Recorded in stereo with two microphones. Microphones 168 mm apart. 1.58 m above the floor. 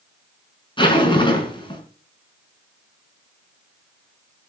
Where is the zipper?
30° left (ahead or behind), 5 m.